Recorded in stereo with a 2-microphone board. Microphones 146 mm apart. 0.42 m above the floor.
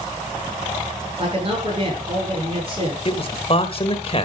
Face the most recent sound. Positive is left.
turn(degrees=40)  # may be behind; listen again after turning